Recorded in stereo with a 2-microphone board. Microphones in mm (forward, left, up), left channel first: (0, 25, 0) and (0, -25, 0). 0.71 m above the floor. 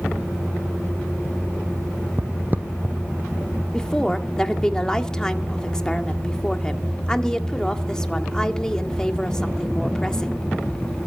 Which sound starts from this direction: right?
Footsteps, at 2.2 s.